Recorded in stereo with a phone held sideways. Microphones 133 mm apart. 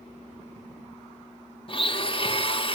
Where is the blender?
40° left (ahead or behind), 1.7 m.